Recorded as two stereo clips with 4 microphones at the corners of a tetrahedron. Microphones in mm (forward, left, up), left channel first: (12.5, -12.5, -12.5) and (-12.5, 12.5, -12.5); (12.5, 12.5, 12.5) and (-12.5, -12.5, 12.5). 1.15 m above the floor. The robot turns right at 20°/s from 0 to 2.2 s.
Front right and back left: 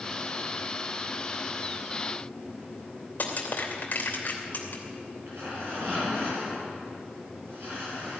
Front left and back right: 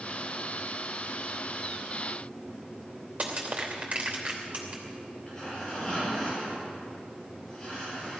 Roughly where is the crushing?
Right.